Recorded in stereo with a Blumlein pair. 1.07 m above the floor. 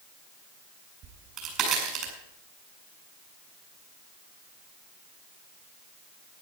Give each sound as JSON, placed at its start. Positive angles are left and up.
{"t": 1.0, "sound": "a crack", "azimuth_deg": -35, "distance_m": 5.0}